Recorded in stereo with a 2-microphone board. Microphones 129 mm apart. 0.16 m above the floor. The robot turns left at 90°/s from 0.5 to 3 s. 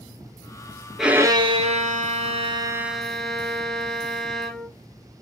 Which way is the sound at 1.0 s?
Straight ahead.